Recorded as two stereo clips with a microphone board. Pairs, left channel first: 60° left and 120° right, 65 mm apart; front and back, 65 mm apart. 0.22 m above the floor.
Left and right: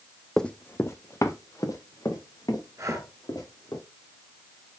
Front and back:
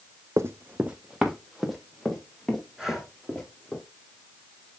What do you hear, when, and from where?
0.4 s running footsteps: 145° left, 0.7 m; by 3.8 s 80° left, 5 m
2.8 s breathing: 95° right, 2.5 m